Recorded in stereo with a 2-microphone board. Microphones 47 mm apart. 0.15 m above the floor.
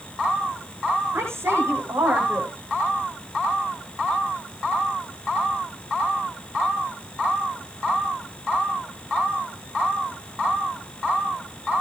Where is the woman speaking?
65° right (ahead or behind), 9.5 m.